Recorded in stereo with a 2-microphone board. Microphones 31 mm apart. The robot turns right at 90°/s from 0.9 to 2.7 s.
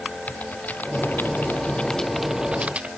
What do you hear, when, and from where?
0.3 s typing on a keyboard: 60° left (ahead or behind); by 2.9 s 45° right (ahead or behind)